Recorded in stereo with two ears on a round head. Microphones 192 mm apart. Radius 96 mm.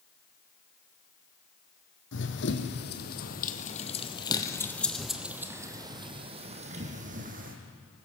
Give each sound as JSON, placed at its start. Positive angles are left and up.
{"t": 2.1, "sound": "running footsteps", "side_deg": 60, "distance_m": 2.5}